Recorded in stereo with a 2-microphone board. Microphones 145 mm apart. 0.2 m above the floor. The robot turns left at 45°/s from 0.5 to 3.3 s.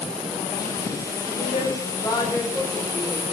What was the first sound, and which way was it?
A woman speaking, 60° left.